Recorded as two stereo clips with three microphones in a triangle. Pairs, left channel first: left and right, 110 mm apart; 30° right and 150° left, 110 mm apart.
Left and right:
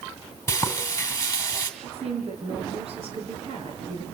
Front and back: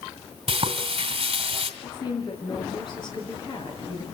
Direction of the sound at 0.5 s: 150° left.